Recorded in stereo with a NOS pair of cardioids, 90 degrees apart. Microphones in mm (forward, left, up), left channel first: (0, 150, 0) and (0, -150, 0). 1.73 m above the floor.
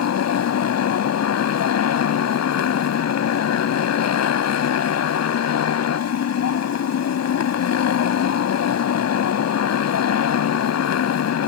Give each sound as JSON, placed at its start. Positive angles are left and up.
{"t": 0.0, "sound": "a motorcycle", "azimuth_deg": 60}